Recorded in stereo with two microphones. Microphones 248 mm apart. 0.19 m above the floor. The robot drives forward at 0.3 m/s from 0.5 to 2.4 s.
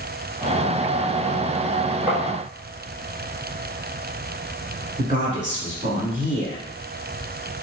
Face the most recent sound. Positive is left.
turn(degrees=-35)  # may be behind; listen again after turning